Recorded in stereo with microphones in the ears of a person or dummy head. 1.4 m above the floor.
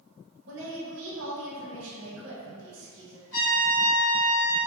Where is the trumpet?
65° left (ahead or behind), 1.6 m.